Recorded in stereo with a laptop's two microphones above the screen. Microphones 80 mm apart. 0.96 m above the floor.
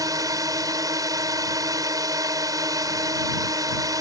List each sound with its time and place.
0.0 s a drone: 45° right (ahead or behind)